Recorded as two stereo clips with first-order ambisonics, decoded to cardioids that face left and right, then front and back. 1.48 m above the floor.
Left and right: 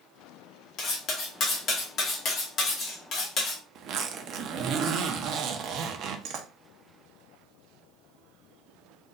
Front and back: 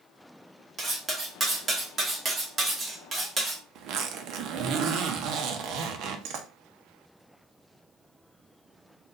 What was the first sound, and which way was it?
Cutlery clinking, 120° left.